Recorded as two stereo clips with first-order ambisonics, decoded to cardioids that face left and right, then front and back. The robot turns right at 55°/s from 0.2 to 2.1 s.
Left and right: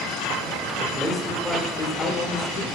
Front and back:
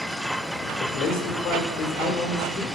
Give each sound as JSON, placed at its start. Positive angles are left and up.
{"t": 0.8, "sound": "a man speaking", "azimuth_deg": -25, "distance_m": 1.7}